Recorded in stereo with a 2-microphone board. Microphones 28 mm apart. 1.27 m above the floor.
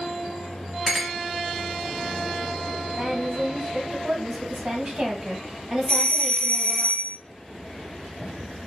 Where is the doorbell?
35° left (ahead or behind), 0.9 m.